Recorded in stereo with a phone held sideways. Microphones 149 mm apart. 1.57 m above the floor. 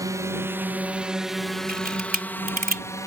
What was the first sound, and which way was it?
A drone, 25° right (ahead or behind).